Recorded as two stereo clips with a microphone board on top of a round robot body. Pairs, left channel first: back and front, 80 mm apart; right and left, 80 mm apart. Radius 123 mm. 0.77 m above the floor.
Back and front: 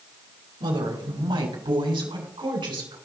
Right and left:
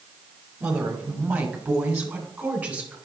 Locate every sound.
0.6 s a woman speaking: 15° left, 2.5 m